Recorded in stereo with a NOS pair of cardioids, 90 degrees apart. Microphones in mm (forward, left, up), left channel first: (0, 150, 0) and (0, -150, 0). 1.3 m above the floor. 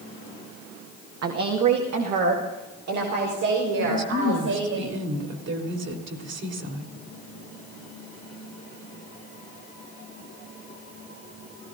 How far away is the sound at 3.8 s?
About 3.5 m.